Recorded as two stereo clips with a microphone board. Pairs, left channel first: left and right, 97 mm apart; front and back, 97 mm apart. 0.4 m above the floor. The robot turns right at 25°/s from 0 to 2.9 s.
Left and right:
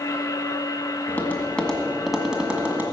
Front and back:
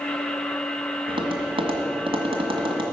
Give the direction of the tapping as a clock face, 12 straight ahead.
7 o'clock.